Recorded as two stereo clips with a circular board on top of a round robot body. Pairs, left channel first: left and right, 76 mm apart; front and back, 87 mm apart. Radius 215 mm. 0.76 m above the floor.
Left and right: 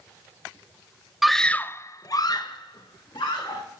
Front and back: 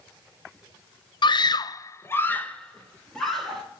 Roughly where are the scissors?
I don't hear scissors.